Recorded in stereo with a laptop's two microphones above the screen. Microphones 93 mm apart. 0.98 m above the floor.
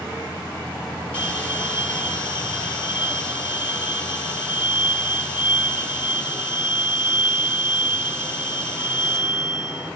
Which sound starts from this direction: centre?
A bell, at 1.1 s.